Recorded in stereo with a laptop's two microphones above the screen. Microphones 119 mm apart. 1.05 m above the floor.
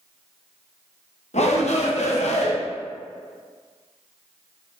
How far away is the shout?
About 0.9 m.